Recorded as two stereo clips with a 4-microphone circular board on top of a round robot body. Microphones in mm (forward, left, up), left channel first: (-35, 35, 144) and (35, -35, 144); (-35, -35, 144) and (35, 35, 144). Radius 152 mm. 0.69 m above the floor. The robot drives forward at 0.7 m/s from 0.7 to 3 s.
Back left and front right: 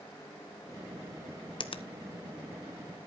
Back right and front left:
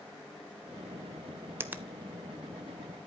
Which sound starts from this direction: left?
A finger snap, at 1.6 s.